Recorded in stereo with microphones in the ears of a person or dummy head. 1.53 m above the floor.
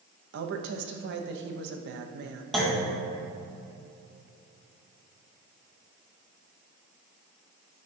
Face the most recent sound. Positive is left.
turn(degrees=5)  # may be behind; listen again after turning